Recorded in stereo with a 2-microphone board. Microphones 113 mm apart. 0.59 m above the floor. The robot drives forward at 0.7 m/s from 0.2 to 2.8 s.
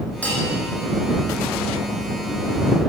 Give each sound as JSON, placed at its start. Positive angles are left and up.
{"t": 0.2, "sound": "a bell", "side_deg": 15, "distance_m": 8.5}